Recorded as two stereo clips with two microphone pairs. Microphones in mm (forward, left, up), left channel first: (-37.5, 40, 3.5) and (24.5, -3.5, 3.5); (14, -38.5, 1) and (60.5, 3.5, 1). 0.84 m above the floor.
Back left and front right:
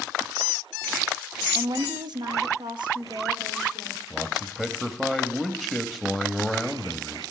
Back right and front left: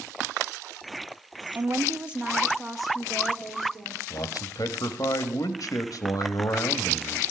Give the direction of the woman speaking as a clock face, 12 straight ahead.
12 o'clock.